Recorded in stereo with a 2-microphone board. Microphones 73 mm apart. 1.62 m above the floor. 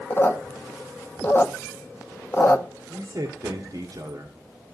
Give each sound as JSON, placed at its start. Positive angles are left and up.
{"t": 0.1, "sound": "a squeak", "side_deg": 30, "distance_m": 0.7}
{"t": 2.9, "sound": "a man speaking", "side_deg": -50, "distance_m": 1.4}